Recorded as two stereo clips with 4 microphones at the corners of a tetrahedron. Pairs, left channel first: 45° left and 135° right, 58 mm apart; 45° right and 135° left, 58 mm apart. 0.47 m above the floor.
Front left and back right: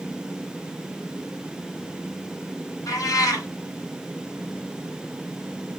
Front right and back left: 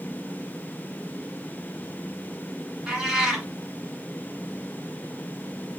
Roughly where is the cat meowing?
Ahead left.